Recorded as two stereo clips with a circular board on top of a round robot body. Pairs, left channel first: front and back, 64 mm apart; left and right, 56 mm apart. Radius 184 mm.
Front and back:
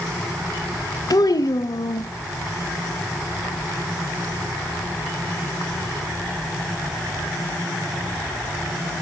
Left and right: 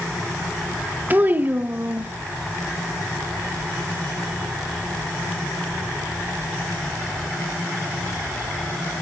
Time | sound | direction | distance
1.1 | a child speaking | 30° right | 1.0 m